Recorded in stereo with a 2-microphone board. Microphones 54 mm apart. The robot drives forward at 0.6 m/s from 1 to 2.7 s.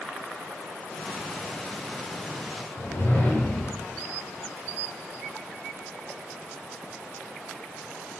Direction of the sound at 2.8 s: 50° left (ahead or behind).